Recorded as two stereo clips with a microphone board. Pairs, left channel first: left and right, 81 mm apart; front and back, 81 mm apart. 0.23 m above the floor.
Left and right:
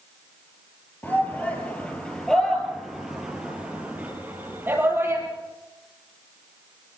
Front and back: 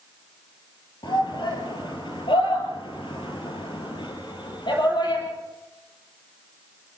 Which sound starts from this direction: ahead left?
A shout, at 1.0 s.